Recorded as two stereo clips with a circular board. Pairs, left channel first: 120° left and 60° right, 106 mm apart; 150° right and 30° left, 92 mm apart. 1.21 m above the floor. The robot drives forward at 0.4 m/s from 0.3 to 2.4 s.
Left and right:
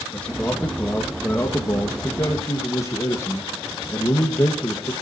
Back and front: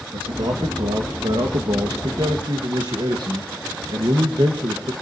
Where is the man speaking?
40° left, 2 m; by 4.9 s 60° left, 1.7 m.